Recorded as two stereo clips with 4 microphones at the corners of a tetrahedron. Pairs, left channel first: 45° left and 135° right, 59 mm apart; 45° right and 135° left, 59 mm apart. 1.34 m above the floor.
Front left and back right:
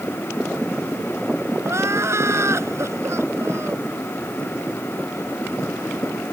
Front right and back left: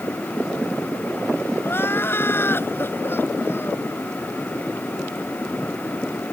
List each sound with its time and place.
1.6 s crying: 95° right